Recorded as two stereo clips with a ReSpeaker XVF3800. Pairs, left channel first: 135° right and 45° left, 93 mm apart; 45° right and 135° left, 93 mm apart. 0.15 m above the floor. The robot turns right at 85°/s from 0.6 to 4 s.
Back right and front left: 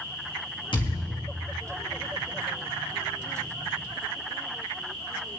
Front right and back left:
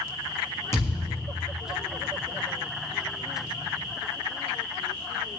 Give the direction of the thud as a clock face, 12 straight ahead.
4 o'clock.